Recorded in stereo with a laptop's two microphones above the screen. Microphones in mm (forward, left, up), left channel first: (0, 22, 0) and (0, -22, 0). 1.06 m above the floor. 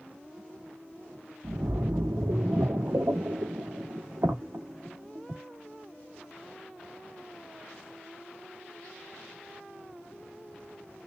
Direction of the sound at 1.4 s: 75° right (ahead or behind).